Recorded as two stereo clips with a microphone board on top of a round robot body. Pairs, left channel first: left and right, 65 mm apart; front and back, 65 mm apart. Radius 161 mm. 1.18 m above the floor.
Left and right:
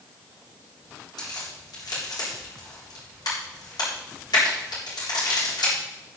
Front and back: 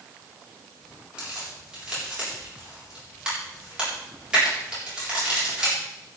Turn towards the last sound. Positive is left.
turn(degrees=100)